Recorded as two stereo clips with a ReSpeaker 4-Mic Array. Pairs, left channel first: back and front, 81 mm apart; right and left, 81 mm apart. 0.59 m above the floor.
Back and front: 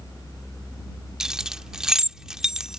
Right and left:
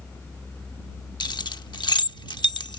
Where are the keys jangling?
80° right.